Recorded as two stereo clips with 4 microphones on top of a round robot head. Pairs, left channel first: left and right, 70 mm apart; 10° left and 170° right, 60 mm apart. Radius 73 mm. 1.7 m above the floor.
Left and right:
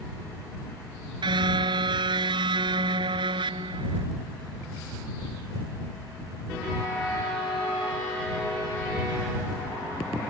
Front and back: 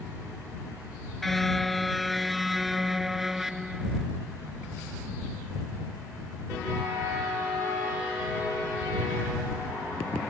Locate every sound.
1.2 s a car horn: 80° right; by 4.0 s 90° right